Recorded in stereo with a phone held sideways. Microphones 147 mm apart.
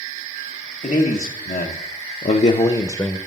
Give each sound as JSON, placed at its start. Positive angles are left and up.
{"t": 0.8, "sound": "a man speaking", "side_deg": 70, "distance_m": 1.3}